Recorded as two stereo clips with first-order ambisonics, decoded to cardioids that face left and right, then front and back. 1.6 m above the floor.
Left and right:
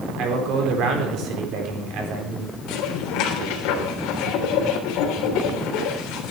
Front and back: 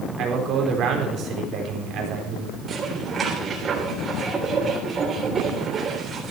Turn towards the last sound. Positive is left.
turn(degrees=115)